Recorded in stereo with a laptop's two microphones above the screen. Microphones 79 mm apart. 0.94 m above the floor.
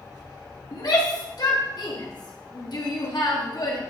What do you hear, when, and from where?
0.7 s a shout: 60° left (ahead or behind), 1.3 m